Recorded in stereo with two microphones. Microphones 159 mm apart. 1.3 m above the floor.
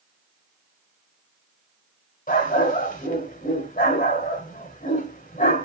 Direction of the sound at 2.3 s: 60° left (ahead or behind).